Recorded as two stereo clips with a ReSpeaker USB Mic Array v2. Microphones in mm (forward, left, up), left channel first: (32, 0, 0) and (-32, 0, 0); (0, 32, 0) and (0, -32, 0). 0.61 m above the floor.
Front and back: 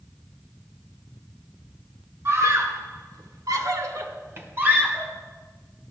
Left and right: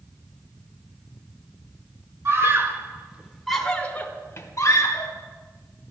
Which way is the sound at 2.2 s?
135° right.